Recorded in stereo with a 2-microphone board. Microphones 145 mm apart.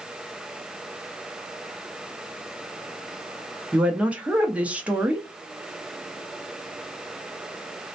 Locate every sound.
3.7 s a woman speaking: 10° right (ahead or behind), 0.6 m